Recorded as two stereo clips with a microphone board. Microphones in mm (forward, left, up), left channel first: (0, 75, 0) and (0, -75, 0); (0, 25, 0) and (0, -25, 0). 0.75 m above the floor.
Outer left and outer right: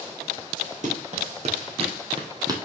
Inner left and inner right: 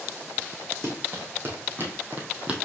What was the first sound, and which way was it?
Running footsteps, 55° right (ahead or behind).